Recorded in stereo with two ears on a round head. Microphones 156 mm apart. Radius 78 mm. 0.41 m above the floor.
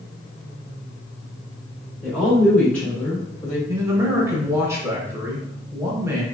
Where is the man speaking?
15° right (ahead or behind), 1.0 m.